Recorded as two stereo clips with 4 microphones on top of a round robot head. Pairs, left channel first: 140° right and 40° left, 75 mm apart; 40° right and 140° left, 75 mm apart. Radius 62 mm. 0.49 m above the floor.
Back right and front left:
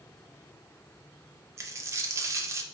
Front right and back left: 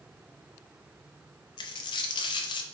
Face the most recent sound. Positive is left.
turn(degrees=-15)